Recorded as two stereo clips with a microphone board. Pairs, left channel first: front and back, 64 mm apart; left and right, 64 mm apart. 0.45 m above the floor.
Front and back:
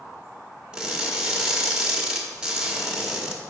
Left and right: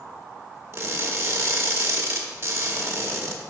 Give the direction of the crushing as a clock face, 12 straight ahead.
4 o'clock.